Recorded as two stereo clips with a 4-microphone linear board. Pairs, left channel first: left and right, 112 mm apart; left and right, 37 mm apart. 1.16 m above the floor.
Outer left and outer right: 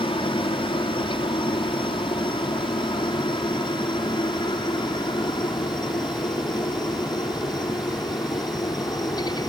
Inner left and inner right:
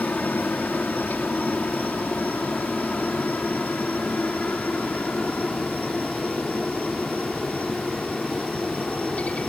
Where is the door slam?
I don't hear a door slam.